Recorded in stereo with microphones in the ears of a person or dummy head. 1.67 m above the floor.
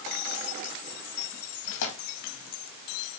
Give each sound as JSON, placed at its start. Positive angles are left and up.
{"t": 1.6, "sound": "tearing paper", "side_deg": 75, "distance_m": 2.5}